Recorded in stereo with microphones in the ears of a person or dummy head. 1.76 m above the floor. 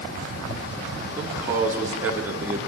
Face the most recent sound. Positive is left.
turn(degrees=-15)  # may be behind; listen again after turning